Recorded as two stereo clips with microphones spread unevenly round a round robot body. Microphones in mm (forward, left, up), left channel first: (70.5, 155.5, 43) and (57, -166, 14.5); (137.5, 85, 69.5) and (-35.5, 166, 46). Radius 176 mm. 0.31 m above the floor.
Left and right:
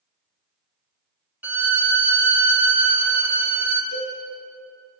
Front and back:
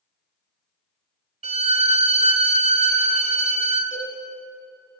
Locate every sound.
1.4 s a violin: 170° right, 0.8 m
3.9 s a cowbell: 40° left, 5 m